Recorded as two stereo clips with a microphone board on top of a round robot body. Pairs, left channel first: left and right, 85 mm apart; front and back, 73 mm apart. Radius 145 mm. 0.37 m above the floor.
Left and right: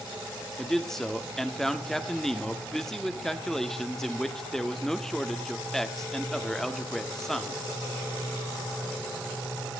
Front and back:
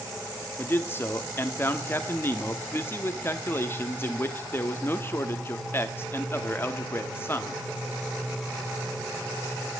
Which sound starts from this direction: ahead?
A man speaking, at 0.6 s.